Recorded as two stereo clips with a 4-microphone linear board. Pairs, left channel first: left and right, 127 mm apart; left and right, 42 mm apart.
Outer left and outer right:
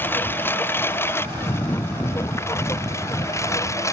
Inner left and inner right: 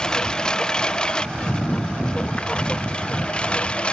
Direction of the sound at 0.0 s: 15° left (ahead or behind).